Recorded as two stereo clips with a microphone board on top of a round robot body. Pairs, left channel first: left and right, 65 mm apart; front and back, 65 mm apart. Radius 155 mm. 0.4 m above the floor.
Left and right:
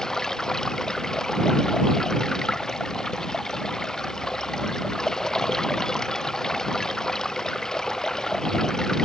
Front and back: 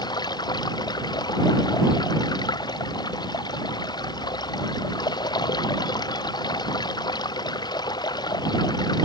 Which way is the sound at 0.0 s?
10° left.